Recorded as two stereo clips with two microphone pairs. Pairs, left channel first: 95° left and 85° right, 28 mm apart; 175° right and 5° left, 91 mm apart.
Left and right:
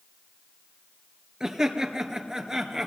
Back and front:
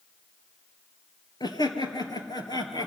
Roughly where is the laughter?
Behind right.